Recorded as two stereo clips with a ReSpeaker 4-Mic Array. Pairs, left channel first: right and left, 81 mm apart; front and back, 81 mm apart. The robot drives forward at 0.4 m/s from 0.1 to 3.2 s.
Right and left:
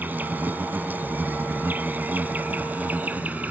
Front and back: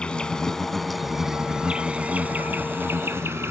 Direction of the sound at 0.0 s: 60° left.